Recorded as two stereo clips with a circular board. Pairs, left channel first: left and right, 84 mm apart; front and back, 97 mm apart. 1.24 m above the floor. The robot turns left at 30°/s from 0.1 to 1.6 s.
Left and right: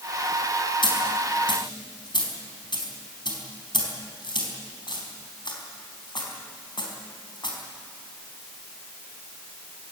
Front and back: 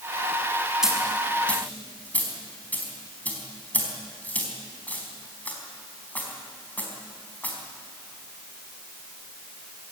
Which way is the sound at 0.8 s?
95° left.